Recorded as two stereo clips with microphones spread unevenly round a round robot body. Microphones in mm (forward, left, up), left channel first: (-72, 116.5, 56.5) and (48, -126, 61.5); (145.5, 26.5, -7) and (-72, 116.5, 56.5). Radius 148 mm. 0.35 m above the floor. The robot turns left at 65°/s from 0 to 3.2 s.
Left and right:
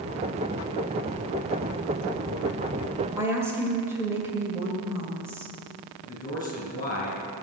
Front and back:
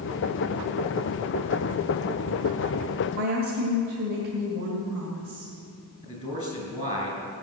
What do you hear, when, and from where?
3.2 s a woman speaking: 140° right, 2 m; by 5.5 s 145° right, 2 m
6.0 s a man speaking: 40° left, 5.5 m